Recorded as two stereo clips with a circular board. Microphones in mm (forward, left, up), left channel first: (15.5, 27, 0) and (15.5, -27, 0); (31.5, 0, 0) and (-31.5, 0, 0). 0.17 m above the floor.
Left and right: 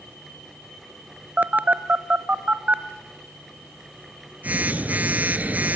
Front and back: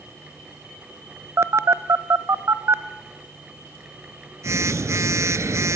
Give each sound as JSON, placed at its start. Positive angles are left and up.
{"t": 1.4, "sound": "a phone buzzing", "azimuth_deg": -150, "distance_m": 0.6}